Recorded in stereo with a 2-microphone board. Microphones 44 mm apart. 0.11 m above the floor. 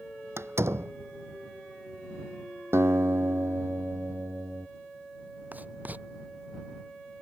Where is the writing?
35° right (ahead or behind).